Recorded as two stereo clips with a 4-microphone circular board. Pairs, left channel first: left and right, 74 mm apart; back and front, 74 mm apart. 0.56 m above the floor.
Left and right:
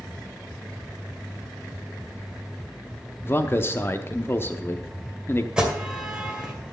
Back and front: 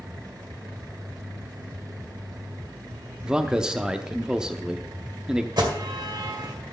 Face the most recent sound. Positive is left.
turn(degrees=-15)